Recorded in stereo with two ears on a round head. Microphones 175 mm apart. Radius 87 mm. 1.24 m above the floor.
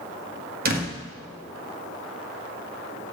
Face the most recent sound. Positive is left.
turn(degrees=-50)  # may be behind; listen again after turning